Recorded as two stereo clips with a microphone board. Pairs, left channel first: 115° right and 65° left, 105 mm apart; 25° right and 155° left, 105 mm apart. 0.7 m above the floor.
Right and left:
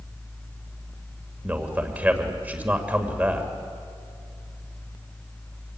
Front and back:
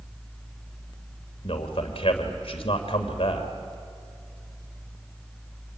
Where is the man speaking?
5° right, 2.5 m.